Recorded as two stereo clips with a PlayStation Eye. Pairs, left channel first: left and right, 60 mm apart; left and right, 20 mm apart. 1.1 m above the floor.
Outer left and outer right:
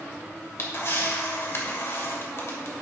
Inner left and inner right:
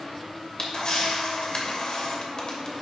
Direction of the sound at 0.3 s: 50° left (ahead or behind).